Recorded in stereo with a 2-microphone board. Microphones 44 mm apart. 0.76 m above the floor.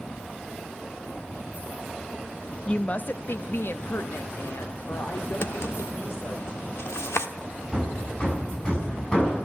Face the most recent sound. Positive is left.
turn(degrees=20)  # may be behind; listen again after turning